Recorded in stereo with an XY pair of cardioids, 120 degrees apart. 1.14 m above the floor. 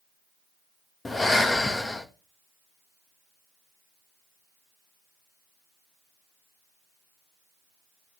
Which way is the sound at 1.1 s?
20° left.